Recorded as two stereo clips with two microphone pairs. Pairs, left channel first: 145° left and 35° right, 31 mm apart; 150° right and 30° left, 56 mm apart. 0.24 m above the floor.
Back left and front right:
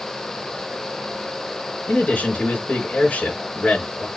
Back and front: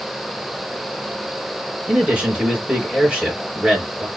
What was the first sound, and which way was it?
A man speaking, 105° left.